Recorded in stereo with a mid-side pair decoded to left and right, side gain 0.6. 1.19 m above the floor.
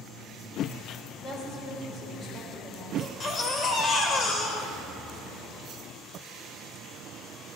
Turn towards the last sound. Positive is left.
turn(degrees=35)